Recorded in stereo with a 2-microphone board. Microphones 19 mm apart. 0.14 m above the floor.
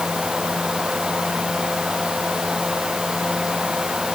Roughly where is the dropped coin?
No dropped coin in this recording.